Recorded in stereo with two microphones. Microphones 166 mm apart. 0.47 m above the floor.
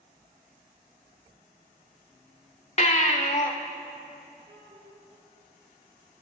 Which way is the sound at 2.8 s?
45° left (ahead or behind).